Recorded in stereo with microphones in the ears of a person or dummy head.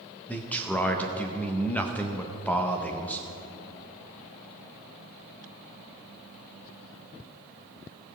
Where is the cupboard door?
No cupboard door in this recording.